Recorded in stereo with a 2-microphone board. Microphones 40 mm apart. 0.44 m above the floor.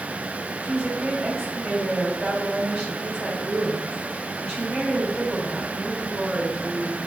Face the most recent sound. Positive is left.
turn(degrees=-40)  # may be behind; listen again after turning